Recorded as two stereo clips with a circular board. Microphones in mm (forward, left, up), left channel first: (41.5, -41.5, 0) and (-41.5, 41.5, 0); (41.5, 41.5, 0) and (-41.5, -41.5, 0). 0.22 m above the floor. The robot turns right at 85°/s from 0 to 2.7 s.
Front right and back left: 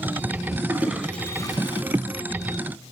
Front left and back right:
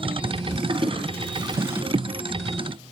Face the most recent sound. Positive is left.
turn(degrees=10)